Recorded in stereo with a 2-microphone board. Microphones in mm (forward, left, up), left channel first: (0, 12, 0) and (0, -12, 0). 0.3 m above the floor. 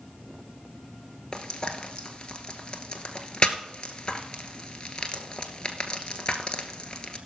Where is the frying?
40° left (ahead or behind), 0.9 m.